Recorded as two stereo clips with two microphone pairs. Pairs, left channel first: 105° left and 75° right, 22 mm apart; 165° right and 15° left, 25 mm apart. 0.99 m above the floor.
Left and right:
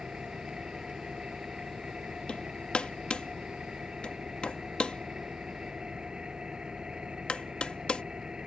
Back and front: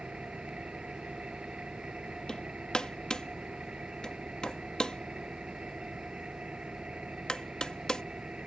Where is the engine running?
30° right.